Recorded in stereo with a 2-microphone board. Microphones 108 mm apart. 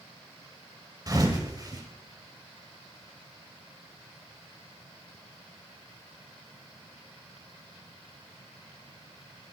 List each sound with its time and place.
1.1 s a thud: 35° right (ahead or behind), 1.8 m